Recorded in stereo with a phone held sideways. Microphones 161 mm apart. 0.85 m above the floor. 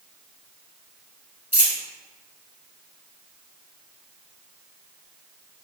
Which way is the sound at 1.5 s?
55° left (ahead or behind).